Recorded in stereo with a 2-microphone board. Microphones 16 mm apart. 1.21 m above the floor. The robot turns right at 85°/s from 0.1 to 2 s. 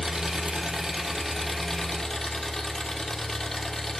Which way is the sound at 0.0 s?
120° right.